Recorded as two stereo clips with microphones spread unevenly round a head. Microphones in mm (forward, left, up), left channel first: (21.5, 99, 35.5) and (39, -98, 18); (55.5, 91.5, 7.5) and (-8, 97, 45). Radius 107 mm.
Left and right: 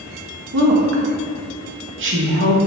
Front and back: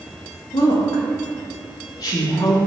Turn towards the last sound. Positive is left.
turn(degrees=-55)